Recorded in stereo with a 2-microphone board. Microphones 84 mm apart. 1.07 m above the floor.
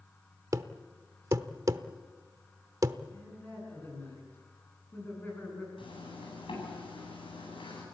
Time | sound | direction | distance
0.5 | a thud | 40° right (ahead or behind) | 0.8 m
3.1 | a man speaking | 25° left (ahead or behind) | 9 m
5.8 | a zipper | 75° left (ahead or behind) | 9.5 m